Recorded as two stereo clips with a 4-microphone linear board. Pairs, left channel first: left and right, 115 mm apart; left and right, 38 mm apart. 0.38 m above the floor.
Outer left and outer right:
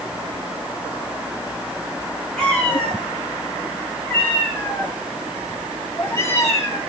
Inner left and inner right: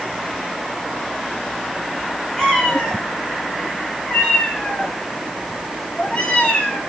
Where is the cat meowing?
5° left (ahead or behind), 7.5 m; by 6.8 s 25° left (ahead or behind), 5.5 m.